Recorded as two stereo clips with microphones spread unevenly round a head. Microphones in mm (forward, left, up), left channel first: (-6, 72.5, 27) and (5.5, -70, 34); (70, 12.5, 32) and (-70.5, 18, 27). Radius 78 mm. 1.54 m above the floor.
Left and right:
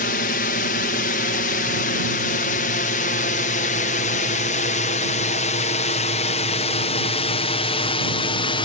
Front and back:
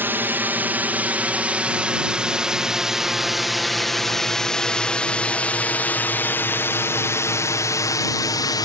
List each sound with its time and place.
0.0 s a drone: 105° left; by 8.6 s 50° left